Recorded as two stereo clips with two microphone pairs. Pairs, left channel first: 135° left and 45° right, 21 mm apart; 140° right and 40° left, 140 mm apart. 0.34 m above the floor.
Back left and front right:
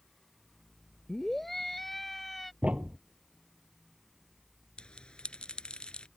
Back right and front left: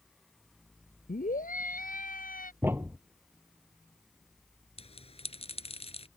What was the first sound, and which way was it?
A scream, 145° right.